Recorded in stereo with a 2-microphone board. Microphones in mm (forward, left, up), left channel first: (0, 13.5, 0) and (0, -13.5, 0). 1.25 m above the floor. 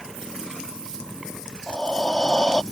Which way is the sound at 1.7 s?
35° left (ahead or behind).